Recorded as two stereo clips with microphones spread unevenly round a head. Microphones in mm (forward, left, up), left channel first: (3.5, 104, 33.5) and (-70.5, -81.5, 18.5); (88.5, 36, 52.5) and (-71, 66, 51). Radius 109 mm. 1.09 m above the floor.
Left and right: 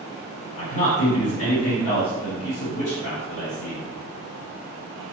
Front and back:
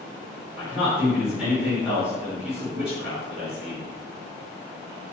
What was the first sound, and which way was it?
A man speaking, 85° left.